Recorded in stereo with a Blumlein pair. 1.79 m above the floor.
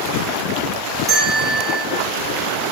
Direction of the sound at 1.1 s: 15° right.